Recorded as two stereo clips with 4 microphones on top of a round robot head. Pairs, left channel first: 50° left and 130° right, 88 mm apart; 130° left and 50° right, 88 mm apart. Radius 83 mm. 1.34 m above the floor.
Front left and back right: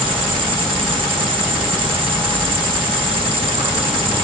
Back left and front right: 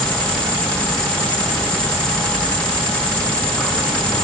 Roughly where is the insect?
Behind.